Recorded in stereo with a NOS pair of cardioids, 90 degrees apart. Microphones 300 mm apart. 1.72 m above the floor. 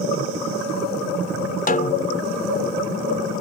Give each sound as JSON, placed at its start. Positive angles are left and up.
{"t": 1.7, "sound": "a snare drum", "azimuth_deg": 30}